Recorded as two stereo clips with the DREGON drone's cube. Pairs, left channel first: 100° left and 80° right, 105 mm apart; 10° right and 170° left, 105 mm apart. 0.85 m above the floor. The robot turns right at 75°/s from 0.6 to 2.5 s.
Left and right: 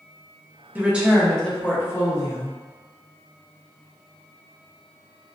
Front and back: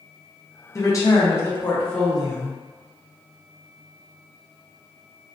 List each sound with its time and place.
0.8 s a woman speaking: 25° right, 0.8 m; by 2.6 s 105° left, 0.8 m